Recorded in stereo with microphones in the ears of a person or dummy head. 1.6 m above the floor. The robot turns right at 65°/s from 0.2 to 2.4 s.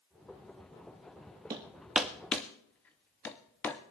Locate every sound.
1.5 s hammering: 15° right (ahead or behind), 0.6 m; by 3.8 s 10° left (ahead or behind), 0.6 m